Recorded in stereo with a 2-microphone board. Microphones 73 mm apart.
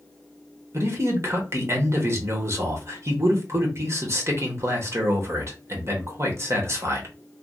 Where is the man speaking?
40° right (ahead or behind), 1.0 m.